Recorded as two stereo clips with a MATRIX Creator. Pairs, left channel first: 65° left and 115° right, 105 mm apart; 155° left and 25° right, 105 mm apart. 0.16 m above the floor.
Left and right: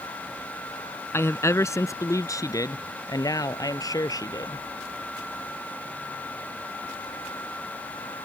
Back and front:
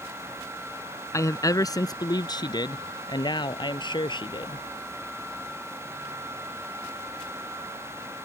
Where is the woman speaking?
120° left.